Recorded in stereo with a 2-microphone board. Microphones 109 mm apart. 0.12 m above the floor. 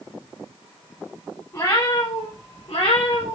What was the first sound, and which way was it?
A cat meowing, 30° left (ahead or behind).